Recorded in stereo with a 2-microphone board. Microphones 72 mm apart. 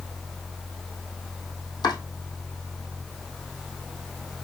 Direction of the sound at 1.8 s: 70° left (ahead or behind).